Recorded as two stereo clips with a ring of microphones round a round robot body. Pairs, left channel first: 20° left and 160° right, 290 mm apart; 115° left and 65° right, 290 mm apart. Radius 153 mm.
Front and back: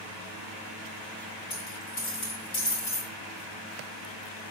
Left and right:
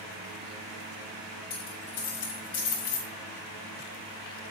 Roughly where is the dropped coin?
Left.